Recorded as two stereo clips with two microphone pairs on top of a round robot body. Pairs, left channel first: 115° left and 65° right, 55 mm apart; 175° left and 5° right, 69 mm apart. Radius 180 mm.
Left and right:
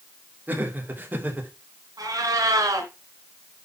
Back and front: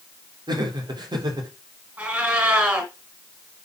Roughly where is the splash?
I don't hear a splash.